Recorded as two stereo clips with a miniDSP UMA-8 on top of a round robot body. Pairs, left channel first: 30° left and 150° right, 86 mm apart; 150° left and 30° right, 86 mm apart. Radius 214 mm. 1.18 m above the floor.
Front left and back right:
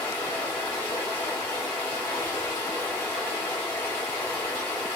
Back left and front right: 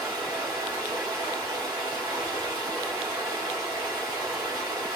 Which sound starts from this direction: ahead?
Running water, at 0.0 s.